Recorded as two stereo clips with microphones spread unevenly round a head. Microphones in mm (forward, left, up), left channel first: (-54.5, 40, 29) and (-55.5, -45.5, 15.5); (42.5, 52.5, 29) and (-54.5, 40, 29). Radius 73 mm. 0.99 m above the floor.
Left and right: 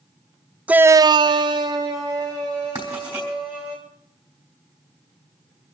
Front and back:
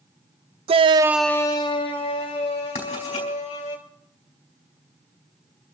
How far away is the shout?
About 0.7 m.